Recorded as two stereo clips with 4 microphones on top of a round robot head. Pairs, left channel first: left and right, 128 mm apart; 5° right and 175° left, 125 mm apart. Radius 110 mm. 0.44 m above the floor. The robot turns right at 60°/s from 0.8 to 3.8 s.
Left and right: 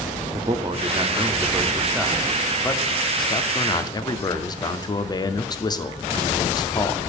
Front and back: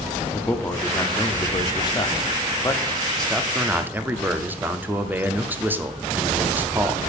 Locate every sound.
0.3 s a man speaking: 70° right, 0.9 m; by 7.0 s 110° left, 0.9 m